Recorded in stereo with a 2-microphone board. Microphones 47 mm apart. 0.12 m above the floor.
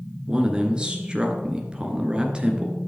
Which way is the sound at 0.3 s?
20° right (ahead or behind).